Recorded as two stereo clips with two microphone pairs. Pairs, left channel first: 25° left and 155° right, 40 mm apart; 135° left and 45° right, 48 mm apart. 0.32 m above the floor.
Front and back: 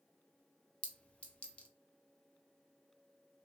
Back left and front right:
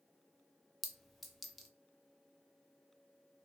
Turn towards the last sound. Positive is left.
turn(degrees=50)